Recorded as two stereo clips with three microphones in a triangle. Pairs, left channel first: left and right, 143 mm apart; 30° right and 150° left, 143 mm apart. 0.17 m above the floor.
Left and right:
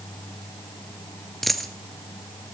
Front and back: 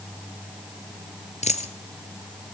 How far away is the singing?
No singing in this recording.